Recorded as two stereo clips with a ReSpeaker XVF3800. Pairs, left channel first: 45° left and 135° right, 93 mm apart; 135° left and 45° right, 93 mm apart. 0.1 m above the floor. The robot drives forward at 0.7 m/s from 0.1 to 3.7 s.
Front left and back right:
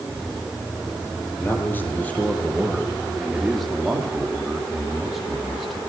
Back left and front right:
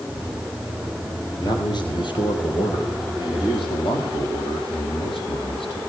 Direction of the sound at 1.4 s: 105° left.